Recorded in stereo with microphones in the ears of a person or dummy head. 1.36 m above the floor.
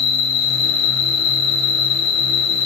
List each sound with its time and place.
0.0 s an insect: 75° left (ahead or behind), 1.7 m